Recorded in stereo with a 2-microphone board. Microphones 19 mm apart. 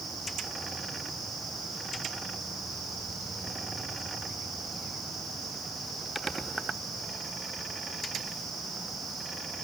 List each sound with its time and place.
Only background noise.